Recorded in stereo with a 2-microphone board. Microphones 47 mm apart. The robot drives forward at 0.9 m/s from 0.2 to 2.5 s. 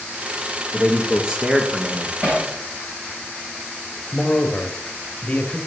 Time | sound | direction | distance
0.7 | a man speaking | 15° right (ahead or behind) | 3 m
2.2 | hammering | 35° right (ahead or behind) | 6 m
4.1 | a man speaking | 25° left (ahead or behind) | 1.7 m